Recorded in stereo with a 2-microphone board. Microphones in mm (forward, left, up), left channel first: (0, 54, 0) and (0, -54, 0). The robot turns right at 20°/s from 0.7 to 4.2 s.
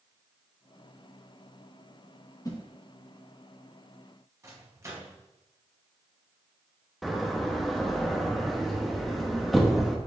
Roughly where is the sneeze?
No sneeze in this recording.